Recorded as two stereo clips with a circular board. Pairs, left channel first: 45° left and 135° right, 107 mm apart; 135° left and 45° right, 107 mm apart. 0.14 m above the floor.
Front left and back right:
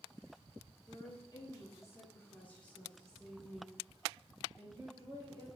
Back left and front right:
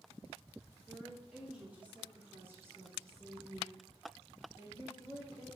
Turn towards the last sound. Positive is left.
turn(degrees=-95)